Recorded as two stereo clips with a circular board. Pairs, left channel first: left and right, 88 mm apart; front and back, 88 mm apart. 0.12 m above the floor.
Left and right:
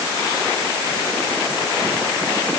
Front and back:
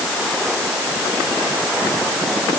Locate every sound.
Only background noise.